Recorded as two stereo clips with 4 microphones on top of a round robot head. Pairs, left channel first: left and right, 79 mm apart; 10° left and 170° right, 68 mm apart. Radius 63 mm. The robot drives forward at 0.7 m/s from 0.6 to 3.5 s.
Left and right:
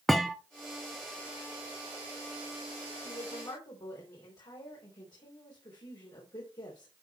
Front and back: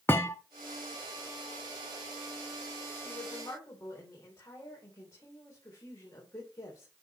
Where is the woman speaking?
55° left, 3.5 m.